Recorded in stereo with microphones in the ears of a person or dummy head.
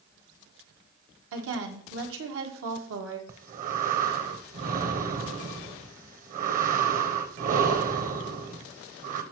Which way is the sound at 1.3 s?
80° right.